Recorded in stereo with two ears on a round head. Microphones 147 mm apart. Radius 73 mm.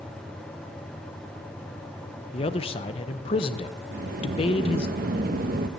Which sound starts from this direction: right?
A sliding door, at 3.9 s.